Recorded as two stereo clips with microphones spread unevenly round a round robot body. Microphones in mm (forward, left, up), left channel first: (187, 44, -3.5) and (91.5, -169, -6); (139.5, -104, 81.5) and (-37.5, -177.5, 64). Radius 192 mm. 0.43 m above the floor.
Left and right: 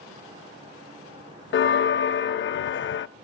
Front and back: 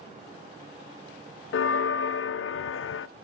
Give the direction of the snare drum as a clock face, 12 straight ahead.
I don't hear a snare drum.